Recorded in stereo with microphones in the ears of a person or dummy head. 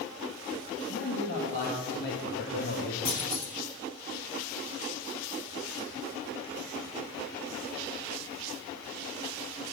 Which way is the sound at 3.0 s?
70° left (ahead or behind).